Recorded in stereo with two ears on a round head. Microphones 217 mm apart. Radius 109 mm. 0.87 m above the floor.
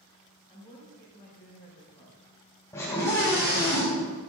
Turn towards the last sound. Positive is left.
turn(degrees=15)  # may be behind; listen again after turning